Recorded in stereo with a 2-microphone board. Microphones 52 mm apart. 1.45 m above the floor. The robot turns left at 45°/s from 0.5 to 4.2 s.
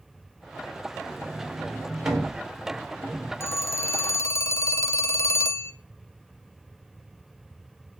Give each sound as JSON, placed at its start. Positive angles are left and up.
{"t": 1.1, "sound": "a sliding door", "side_deg": -30, "distance_m": 3.5}
{"t": 3.4, "sound": "a phone ringing", "azimuth_deg": 115, "distance_m": 0.6}